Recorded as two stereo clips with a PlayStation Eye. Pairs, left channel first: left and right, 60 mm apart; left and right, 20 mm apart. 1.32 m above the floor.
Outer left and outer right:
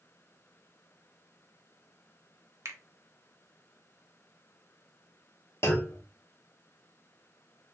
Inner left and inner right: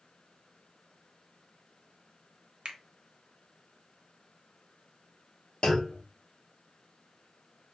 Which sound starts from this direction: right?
A finger snap, at 2.6 s.